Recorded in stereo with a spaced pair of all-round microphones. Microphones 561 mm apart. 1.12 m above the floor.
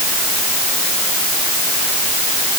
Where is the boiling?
No boiling in this recording.